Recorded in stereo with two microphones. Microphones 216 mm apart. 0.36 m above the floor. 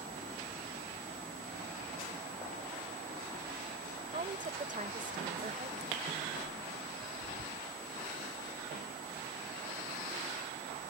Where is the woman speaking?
35° right (ahead or behind).